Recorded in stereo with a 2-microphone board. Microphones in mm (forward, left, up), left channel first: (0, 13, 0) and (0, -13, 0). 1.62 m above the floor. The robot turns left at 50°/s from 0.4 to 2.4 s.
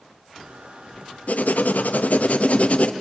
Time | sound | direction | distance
1.3 | writing | 115° left | 0.7 m